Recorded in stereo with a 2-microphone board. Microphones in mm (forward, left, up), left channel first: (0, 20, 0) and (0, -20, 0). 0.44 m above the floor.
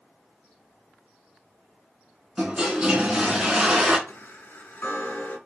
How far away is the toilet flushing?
About 2 m.